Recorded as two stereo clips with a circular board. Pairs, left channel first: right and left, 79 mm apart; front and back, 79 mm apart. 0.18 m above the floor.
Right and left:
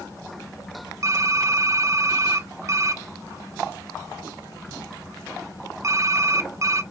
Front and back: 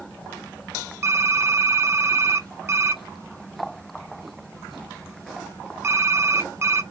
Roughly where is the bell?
I don't hear a bell.